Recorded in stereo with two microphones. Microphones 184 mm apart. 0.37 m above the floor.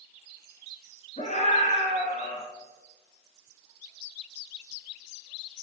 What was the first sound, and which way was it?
A scream, 40° left (ahead or behind).